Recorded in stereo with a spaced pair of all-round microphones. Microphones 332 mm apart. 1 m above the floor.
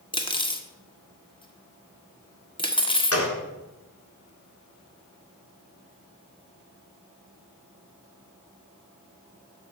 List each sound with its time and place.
0.1 s cutlery clinking: 15° left (ahead or behind), 1.0 m
3.1 s a gunshot: 45° left (ahead or behind), 1.6 m